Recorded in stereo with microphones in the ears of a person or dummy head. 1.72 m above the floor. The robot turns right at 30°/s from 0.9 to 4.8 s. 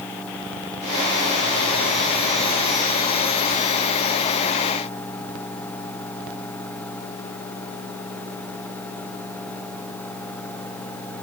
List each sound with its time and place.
Only background noise.